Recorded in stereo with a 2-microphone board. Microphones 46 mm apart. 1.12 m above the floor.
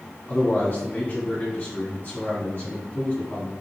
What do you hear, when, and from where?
0.3 s a man speaking: 45° left (ahead or behind), 3 m